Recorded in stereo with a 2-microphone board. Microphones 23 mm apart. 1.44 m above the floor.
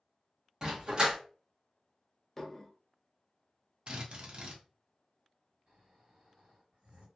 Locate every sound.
0.6 s a dog barking: 35° right (ahead or behind), 1.0 m
2.4 s dishes clattering: 15° left (ahead or behind), 0.5 m
3.9 s a drill: 40° right (ahead or behind), 0.7 m
5.7 s snoring: 50° right (ahead or behind), 1.8 m